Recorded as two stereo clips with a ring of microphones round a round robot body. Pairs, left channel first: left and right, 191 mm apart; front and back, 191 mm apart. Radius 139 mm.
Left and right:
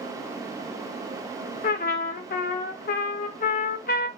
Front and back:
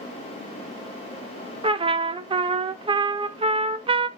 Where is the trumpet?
120° left, 0.6 m.